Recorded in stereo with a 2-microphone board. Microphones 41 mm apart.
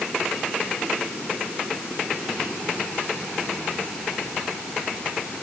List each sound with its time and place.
Only background noise.